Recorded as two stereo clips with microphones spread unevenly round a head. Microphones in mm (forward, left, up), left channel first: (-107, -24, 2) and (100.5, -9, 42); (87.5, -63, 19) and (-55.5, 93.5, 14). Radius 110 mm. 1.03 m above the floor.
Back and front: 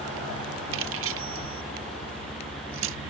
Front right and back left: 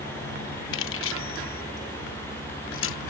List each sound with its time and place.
0.7 s keys jangling: 20° right